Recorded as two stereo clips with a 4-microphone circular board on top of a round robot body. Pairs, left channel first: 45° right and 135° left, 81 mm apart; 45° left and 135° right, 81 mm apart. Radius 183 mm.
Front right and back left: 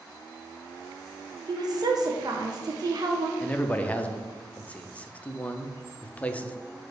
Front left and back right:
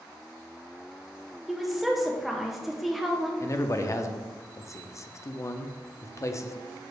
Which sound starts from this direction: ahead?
A man speaking, at 3.4 s.